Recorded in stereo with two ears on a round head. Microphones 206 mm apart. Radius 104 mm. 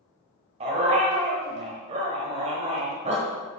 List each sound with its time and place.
0.6 s a dog barking: 30° right (ahead or behind), 1.4 m